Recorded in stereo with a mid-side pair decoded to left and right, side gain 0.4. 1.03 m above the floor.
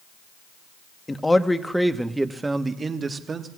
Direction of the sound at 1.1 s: 20° left.